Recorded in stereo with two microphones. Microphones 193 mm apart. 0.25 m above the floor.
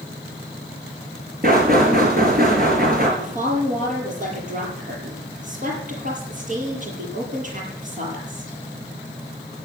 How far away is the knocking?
About 4.5 m.